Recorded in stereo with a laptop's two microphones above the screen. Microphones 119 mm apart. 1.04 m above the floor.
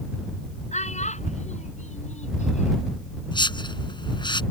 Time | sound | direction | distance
0.7 | a child speaking | 80° left | ?
3.3 | a whoosh | 40° left (ahead or behind) | ?